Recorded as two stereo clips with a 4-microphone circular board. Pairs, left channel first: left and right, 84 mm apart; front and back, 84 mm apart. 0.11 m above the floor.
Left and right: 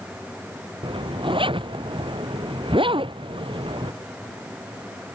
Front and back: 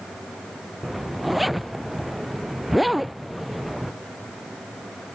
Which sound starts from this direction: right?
A zipper, at 0.8 s.